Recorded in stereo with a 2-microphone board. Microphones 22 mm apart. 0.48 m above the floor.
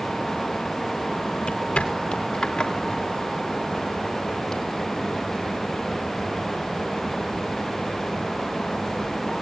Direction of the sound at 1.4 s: 65° left (ahead or behind).